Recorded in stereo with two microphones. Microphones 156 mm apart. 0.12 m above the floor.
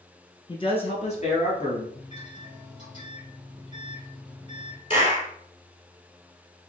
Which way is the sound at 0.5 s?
30° left (ahead or behind).